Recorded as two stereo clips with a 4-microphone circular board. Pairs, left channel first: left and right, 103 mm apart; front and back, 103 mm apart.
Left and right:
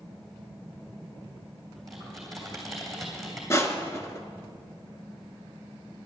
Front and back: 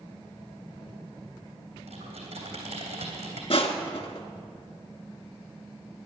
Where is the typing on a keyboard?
Straight behind, 3 m.